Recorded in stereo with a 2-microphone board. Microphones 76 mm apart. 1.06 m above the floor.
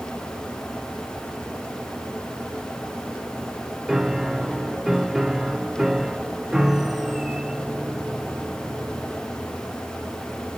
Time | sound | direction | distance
3.9 | a piano | 5° right (ahead or behind) | 0.8 m